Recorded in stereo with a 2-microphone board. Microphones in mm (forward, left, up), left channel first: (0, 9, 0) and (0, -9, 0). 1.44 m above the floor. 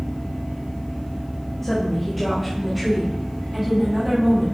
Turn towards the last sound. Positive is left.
turn(degrees=-25)  # may be behind; listen again after turning